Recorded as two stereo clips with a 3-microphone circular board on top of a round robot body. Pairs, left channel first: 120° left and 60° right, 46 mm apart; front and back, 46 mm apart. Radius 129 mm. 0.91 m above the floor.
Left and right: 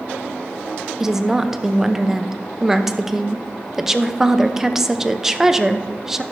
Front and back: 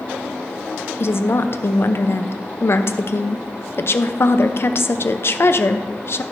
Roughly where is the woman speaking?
Ahead.